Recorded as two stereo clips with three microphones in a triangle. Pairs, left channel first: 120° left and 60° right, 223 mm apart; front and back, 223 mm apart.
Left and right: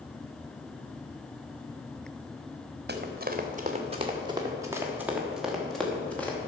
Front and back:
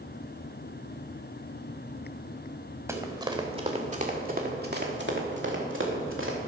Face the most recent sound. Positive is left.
turn(degrees=-155)